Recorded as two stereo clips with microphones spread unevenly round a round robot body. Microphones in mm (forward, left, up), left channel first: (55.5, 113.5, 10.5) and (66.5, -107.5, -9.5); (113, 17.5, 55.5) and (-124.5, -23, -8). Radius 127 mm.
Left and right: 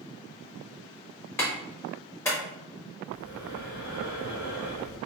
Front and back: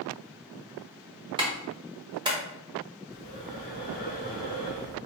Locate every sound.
1.4 s a clap: 175° left, 1.3 m
3.1 s breathing: 100° right, 2.0 m